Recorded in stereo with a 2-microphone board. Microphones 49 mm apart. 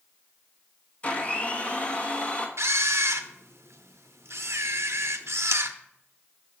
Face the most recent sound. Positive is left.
turn(degrees=-70)  # may be behind; listen again after turning